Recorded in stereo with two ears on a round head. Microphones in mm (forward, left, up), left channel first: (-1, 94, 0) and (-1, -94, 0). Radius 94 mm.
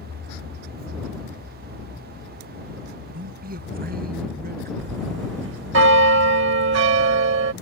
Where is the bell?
60° right (ahead or behind).